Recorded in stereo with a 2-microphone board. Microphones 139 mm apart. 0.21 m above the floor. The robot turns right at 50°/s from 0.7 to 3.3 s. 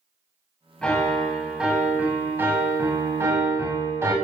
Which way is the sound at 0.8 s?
5° left (ahead or behind).